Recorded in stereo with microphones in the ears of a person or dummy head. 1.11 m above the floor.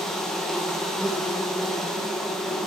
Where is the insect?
10° left (ahead or behind), 1.1 m.